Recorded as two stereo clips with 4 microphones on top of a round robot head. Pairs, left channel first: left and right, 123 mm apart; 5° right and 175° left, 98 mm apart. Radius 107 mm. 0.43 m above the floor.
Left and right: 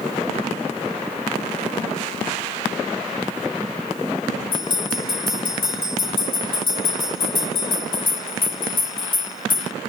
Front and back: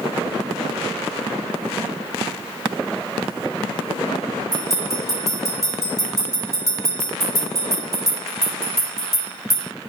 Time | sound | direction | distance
4.5 | a bell | 45° left | 2.5 m